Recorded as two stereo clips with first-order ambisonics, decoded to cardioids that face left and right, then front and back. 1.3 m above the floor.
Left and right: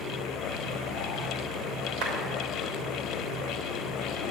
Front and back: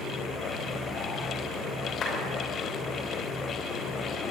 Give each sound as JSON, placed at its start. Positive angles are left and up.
{"t": 2.0, "sound": "a clap", "azimuth_deg": -60, "distance_m": 5.0}